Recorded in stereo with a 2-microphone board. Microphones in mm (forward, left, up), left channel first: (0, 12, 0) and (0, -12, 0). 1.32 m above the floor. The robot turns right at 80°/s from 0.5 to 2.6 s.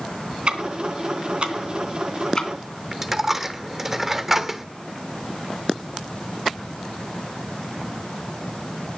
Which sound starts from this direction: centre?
A dropped coin, at 2.9 s.